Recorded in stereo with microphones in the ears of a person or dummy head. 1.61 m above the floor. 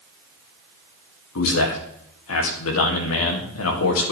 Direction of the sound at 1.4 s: 75° left (ahead or behind).